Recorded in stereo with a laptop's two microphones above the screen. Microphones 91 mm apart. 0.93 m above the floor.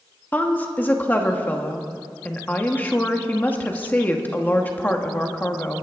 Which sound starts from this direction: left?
A woman speaking, at 0.3 s.